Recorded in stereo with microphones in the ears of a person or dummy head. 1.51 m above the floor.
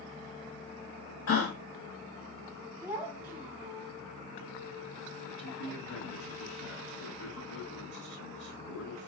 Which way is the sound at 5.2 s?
60° left (ahead or behind).